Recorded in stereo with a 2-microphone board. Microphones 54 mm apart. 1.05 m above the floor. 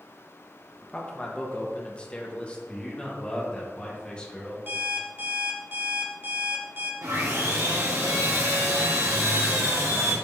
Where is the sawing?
75° right (ahead or behind), 2.5 m.